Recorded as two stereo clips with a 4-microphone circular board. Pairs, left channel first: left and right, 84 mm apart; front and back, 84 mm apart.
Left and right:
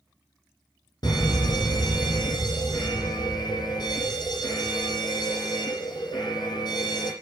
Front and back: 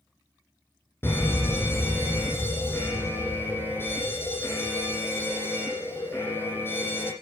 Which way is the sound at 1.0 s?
60° left.